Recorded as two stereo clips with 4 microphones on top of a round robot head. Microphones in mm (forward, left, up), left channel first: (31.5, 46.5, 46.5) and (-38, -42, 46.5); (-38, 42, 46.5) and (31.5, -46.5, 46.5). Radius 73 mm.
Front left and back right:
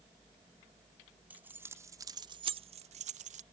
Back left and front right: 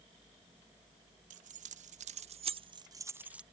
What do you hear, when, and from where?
1.3 s keys jangling: 50° right; by 3.4 s 135° right